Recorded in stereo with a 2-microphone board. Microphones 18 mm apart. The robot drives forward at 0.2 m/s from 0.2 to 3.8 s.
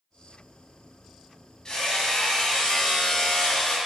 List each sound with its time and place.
1.6 s hammering: 35° left (ahead or behind), 2 m; by 3.8 s 30° left (ahead or behind), 2.5 m